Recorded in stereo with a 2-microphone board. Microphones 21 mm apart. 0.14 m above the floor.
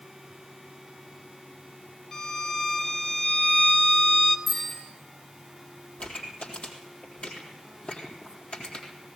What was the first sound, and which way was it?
A violin, 35° left (ahead or behind).